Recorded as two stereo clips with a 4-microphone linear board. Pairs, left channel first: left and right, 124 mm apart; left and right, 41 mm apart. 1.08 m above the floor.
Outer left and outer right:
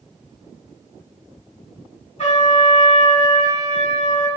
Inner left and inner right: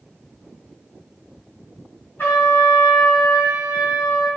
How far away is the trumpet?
About 1.8 m.